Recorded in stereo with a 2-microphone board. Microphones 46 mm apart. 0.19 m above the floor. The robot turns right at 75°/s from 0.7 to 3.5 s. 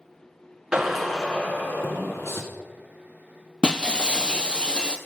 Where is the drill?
15° right, 1.6 m; by 2.4 s 110° left, 1.6 m.